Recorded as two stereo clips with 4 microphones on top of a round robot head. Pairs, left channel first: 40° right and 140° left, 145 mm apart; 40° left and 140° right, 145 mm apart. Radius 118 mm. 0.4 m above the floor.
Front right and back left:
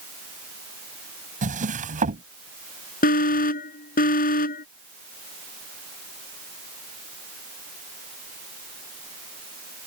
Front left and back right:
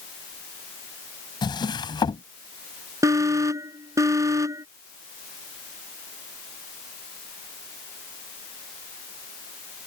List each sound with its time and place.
1.4 s a drawer: 100° left
3.0 s an alarm: 70° right